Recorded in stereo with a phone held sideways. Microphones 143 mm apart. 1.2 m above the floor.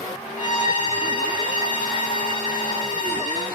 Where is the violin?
60° left (ahead or behind), 1.4 m.